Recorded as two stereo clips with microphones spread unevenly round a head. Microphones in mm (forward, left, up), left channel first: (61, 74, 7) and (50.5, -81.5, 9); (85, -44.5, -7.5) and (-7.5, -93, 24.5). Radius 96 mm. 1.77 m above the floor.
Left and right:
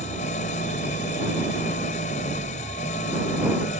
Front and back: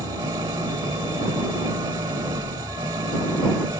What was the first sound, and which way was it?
An engine running, 140° left.